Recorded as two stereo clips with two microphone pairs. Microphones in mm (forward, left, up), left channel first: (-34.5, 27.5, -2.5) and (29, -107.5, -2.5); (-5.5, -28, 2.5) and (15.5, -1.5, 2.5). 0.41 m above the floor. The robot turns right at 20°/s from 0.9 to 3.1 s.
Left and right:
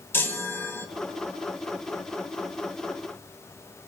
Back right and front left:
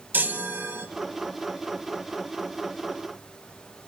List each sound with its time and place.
0.1 s a chime: 40° left, 1.3 m